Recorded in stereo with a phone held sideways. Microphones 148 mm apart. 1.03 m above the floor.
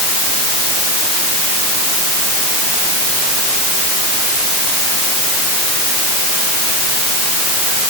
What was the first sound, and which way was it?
Only background noise.